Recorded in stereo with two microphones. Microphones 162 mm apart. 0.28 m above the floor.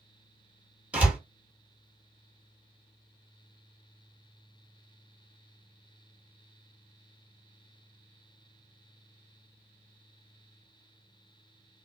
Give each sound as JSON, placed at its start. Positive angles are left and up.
{"t": 0.9, "sound": "a door slam", "side_deg": -10, "distance_m": 1.7}